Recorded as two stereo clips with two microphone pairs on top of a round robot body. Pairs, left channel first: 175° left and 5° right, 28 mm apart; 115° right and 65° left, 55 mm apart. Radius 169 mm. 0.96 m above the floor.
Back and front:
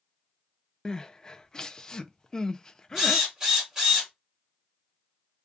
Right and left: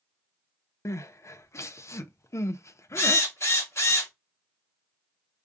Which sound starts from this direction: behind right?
Crying, at 0.8 s.